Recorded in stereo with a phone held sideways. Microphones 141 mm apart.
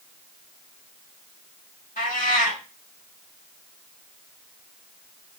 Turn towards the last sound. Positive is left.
turn(degrees=75)  # may be behind; listen again after turning